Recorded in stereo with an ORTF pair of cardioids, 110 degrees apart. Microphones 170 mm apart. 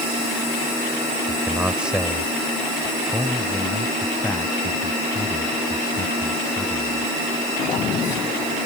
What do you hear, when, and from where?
1.3 s a man speaking: 10° right; by 7.1 s 20° left